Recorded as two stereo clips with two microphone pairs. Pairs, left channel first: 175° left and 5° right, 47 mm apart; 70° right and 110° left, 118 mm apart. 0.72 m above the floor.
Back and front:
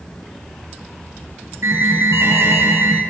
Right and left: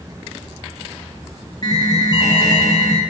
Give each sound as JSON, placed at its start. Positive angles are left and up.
{"t": 1.6, "sound": "an alarm", "azimuth_deg": -15, "distance_m": 8.5}